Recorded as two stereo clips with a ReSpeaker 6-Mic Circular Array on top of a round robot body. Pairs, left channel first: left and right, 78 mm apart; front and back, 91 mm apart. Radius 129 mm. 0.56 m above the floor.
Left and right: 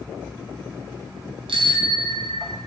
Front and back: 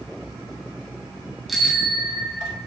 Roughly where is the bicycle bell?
Right.